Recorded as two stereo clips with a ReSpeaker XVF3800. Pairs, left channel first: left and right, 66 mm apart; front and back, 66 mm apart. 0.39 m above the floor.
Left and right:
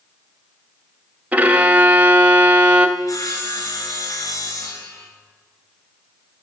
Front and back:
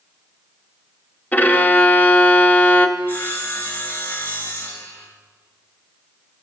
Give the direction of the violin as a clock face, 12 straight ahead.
1 o'clock.